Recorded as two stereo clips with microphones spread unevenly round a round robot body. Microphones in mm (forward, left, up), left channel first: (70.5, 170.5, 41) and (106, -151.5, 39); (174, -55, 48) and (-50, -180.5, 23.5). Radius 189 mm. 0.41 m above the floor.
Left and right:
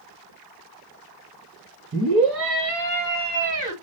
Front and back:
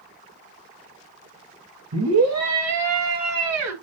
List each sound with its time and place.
1.9 s a scream: 135° right, 4.5 m; by 3.7 s 155° right, 4.5 m